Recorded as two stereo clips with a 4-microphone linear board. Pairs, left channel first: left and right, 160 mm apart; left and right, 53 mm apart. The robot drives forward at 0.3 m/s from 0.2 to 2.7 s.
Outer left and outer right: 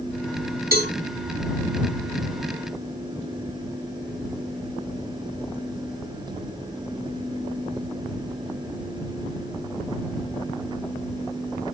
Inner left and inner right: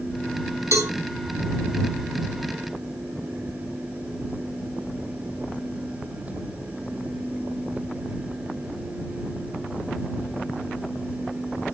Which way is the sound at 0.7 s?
65° right (ahead or behind).